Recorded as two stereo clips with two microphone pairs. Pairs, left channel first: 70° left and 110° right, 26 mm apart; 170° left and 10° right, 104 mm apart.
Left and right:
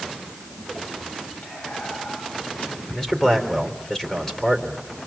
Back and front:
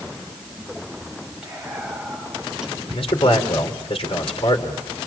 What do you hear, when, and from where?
1.4 s whispering: 75° left, 7.5 m
2.9 s a man speaking: 140° left, 3.5 m